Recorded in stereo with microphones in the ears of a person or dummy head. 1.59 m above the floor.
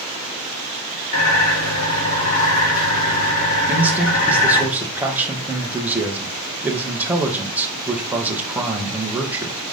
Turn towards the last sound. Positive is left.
turn(degrees=-10)  # may be behind; listen again after turning